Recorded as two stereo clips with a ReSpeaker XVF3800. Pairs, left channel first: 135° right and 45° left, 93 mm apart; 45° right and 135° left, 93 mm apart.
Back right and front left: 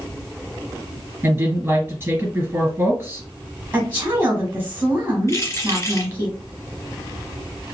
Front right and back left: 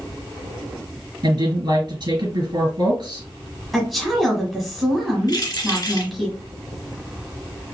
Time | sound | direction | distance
1.2 | a woman speaking | 110° left | 2 m
3.7 | a woman speaking | 45° left | 1.1 m
5.3 | keys jangling | 80° right | 2 m